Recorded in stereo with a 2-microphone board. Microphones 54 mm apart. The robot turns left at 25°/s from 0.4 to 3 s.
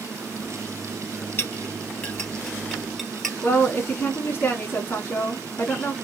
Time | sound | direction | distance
1.4 | a clink | 40° left (ahead or behind) | 2 m
3.4 | a woman speaking | 30° left (ahead or behind) | 1.4 m